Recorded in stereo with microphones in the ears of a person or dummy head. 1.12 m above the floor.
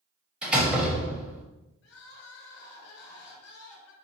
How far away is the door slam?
About 0.9 m.